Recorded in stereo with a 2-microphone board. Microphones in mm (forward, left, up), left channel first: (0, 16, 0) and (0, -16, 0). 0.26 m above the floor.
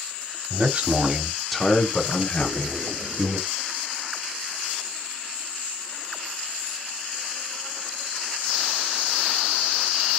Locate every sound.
0.5 s a man speaking: 50° right (ahead or behind), 1.4 m; by 3.4 s 65° left (ahead or behind), 2 m
2.4 s a splash: 20° right (ahead or behind), 1.4 m